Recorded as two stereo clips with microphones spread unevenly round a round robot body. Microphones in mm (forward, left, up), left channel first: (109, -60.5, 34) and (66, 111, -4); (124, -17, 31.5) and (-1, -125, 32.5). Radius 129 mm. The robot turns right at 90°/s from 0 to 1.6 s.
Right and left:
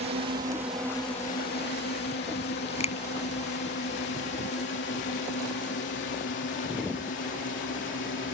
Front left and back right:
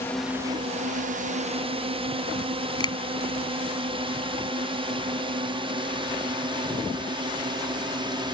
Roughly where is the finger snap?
Ahead right.